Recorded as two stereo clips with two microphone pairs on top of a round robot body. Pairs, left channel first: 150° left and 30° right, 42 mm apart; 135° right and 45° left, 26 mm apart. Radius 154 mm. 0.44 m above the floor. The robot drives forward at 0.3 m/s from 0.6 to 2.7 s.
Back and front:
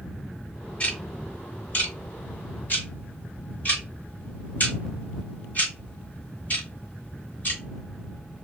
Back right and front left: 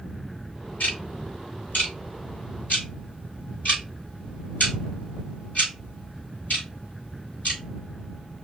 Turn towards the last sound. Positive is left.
turn(degrees=-160)